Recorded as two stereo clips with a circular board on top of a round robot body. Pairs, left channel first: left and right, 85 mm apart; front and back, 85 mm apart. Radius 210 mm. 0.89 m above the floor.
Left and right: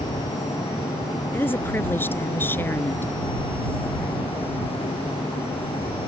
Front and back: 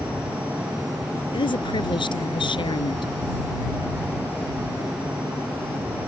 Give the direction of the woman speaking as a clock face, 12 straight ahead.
11 o'clock.